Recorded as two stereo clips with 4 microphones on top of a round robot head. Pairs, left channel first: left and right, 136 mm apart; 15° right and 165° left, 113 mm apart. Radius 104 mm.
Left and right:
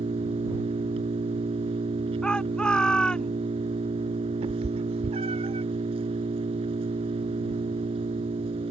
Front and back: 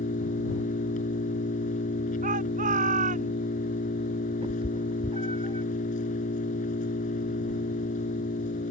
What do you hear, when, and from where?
0.0 s an engine running: 35° right
2.2 s a shout: 175° left
4.4 s a cat meowing: 135° right